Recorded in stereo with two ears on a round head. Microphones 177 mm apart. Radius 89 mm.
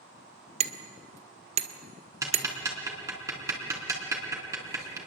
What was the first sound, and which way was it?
Hammering, 35° right (ahead or behind).